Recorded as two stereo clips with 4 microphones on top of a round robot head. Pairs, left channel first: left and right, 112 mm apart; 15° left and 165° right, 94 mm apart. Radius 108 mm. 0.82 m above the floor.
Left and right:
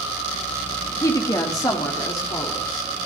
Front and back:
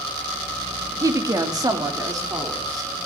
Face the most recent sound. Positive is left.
turn(degrees=145)